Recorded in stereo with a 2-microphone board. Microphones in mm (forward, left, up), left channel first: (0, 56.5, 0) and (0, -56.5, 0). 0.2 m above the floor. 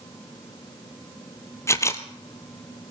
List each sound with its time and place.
1.7 s a camera shutter: 25° left (ahead or behind), 1.2 m